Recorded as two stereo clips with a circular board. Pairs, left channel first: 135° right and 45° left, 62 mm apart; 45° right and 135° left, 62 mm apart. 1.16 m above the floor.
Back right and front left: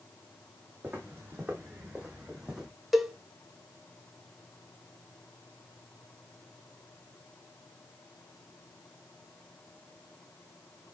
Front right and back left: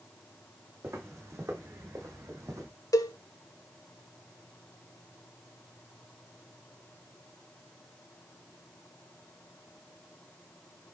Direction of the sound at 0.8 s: 95° left.